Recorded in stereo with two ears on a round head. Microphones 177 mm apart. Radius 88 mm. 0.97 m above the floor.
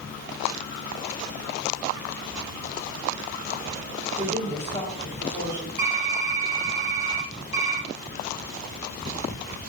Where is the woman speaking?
70° right (ahead or behind), 3 m.